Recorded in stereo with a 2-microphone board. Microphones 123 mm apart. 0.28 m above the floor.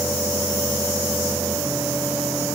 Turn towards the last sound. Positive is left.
No sound to turn to.